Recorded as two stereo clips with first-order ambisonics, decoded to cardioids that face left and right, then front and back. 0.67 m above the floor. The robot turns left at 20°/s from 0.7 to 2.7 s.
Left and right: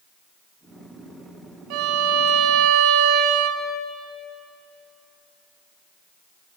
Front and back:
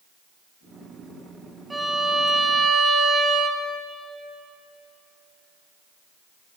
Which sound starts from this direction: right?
A violin, at 1.7 s.